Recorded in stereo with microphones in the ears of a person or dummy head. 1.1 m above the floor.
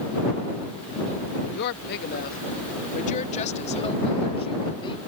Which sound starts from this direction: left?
A woman speaking, at 1.5 s.